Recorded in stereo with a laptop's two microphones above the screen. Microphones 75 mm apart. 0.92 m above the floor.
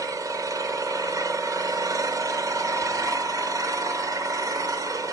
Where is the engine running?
50° right (ahead or behind), 1.1 m.